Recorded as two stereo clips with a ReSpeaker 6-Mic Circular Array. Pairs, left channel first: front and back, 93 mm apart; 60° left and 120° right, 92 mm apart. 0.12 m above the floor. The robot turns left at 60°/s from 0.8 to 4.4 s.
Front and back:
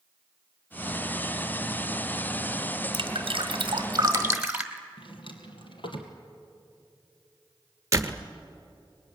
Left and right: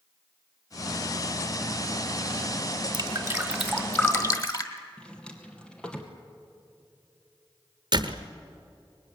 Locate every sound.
2.9 s dripping: 165° right, 1.6 m; by 4.8 s 105° left, 1.6 m
5.0 s a drawer: 20° right, 2.5 m
7.9 s a door slam: 130° right, 1.2 m